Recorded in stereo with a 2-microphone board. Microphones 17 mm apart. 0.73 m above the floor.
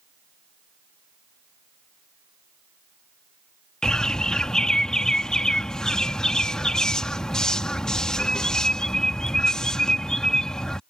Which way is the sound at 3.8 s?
45° left (ahead or behind).